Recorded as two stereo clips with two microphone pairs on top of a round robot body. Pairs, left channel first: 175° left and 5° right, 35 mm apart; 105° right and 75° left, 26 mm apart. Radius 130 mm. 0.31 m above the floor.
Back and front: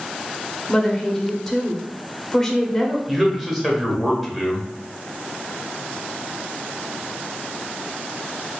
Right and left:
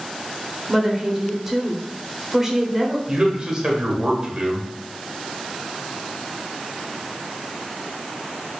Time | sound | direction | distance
0.7 | a woman speaking | 100° left | 1.0 m
3.1 | a man speaking | 75° left | 1.2 m